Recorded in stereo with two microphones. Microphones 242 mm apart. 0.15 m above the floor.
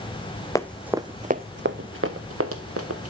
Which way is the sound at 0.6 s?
15° left (ahead or behind).